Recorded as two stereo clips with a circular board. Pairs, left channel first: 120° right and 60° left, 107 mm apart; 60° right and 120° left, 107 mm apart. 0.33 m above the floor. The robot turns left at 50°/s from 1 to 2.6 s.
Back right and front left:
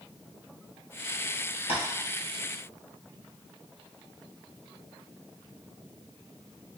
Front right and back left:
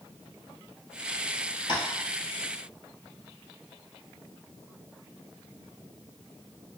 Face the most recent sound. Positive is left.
turn(degrees=-145)